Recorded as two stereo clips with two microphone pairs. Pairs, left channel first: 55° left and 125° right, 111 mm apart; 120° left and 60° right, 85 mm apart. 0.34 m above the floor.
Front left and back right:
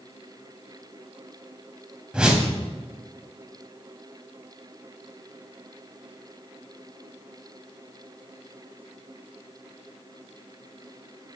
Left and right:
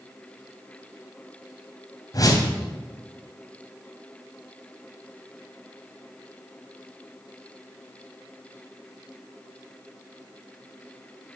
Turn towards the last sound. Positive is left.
turn(degrees=150)